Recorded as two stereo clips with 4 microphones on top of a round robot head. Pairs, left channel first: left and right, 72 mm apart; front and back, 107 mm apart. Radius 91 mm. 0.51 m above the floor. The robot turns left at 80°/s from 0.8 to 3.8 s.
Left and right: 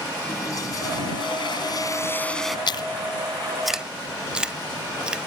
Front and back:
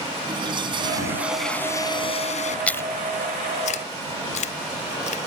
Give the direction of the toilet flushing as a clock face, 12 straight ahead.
7 o'clock.